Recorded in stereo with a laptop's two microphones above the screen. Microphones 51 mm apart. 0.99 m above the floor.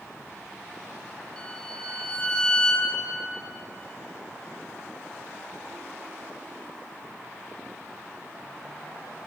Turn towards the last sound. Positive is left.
turn(degrees=15)  # may be behind; listen again after turning